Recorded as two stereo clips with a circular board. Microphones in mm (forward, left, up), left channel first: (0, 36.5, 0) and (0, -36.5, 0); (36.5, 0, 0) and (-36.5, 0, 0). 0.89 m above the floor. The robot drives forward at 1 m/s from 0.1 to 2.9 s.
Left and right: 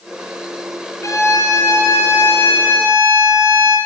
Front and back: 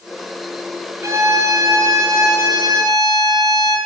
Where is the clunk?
No clunk in this recording.